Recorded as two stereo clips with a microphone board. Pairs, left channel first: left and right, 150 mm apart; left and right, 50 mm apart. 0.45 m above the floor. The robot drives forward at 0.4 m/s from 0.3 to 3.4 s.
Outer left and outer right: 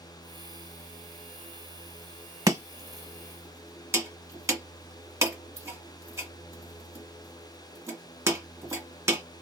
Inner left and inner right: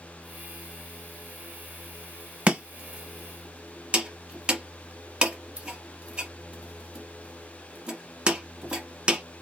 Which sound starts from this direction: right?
Chopping, at 2.5 s.